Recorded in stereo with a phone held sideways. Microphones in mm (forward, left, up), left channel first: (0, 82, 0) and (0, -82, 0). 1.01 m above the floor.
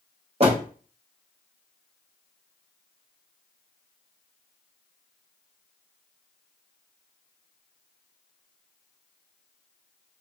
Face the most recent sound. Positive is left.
turn(degrees=-40)  # may be behind; listen again after turning